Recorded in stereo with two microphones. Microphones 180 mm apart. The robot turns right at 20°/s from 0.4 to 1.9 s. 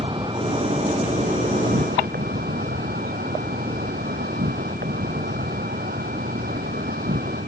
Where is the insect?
150° right; by 7.5 s 120° right.